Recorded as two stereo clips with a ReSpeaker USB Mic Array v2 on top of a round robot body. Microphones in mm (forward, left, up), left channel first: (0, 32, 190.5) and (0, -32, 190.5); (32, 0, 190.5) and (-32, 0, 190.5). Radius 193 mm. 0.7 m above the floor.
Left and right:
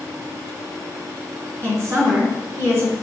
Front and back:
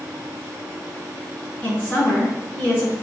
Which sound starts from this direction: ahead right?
A woman speaking, at 1.6 s.